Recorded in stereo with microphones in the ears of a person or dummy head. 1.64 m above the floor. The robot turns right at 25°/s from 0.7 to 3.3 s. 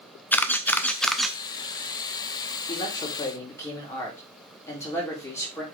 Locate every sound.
0.3 s a camera shutter: 10° left (ahead or behind), 0.6 m; by 1.4 s 5° right (ahead or behind), 0.6 m
2.7 s a man speaking: 25° left (ahead or behind), 3.5 m; by 5.6 s 10° left (ahead or behind), 3.5 m